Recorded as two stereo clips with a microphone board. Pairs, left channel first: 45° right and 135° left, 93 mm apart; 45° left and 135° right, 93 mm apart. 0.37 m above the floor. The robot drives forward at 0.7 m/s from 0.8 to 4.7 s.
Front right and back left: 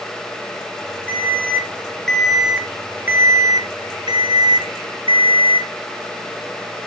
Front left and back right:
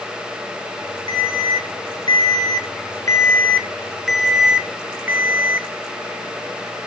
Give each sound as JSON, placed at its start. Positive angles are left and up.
{"t": 1.1, "sound": "an alarm", "azimuth_deg": 25, "distance_m": 1.8}